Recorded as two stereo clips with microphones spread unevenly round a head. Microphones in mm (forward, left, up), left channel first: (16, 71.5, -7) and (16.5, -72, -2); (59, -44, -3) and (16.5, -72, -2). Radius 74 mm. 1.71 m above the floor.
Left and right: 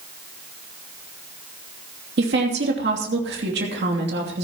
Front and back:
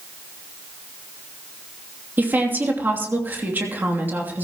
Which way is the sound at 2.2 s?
95° right.